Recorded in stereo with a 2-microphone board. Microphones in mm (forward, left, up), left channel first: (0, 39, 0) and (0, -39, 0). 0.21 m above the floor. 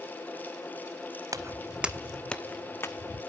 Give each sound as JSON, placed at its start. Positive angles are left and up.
{"t": 1.3, "sound": "footsteps", "side_deg": -45, "distance_m": 0.6}